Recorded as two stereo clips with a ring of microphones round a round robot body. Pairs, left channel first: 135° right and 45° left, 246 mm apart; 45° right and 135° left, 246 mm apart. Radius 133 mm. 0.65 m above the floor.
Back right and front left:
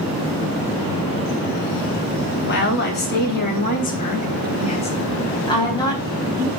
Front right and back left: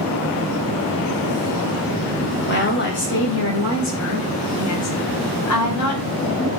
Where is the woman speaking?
90° right, 3 m; by 6.5 s 55° right, 4 m.